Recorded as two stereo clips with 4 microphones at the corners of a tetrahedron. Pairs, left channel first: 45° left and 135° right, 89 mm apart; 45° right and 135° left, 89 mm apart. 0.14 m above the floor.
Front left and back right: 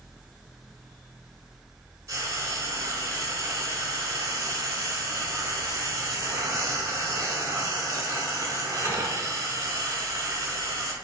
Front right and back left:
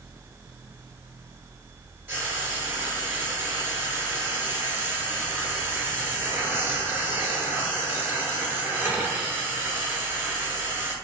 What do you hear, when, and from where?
2.1 s frying: 170° right, 0.7 m